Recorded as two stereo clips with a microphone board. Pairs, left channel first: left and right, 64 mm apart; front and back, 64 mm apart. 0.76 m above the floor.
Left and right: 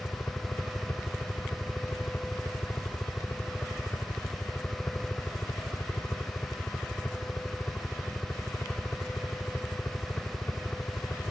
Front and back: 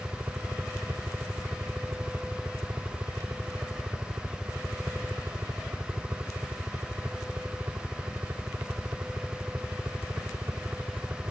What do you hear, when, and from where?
0.0 s a helicopter: 140° left